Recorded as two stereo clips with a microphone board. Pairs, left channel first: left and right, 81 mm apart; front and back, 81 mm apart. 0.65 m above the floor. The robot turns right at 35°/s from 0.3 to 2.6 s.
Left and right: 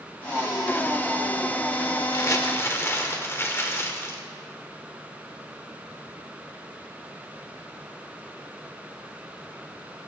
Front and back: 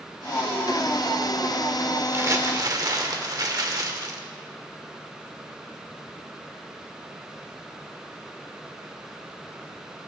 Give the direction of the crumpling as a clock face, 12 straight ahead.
8 o'clock.